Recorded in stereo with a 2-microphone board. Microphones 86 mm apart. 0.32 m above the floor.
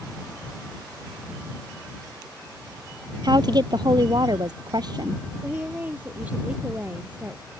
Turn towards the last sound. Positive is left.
turn(degrees=-20)  # may be behind; listen again after turning